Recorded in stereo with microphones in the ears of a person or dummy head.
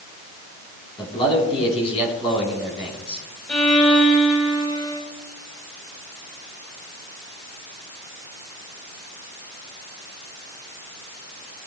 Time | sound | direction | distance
1.0 | a man speaking | 30° left (ahead or behind) | 4.5 m
3.5 | a violin | 5° left (ahead or behind) | 5.5 m